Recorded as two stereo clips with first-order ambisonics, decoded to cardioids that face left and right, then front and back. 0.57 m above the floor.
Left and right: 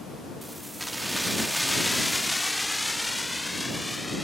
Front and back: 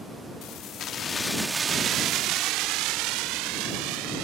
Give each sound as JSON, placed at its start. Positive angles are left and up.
{"t": 0.4, "sound": "keys jangling", "azimuth_deg": -5}